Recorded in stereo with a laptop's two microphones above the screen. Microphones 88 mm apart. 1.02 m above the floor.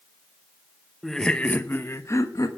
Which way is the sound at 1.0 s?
Centre (ahead or behind).